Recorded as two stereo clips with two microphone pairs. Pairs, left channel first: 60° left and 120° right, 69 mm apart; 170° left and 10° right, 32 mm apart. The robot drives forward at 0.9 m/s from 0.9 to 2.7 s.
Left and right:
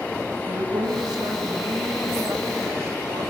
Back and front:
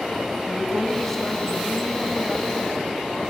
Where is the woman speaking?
105° right, 3 m; by 3.3 s 130° right, 4 m.